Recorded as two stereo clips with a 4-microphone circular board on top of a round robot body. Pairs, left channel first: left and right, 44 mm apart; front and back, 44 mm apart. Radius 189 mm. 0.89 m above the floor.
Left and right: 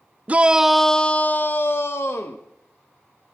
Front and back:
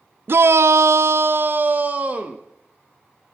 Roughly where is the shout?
Behind right.